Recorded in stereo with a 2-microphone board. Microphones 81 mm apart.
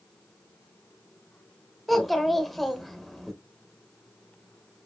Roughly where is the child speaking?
Centre.